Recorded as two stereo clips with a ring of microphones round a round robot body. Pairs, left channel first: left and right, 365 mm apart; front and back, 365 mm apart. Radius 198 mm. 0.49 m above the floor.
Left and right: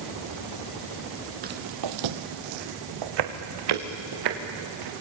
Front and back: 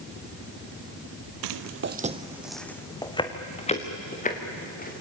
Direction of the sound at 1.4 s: 160° right.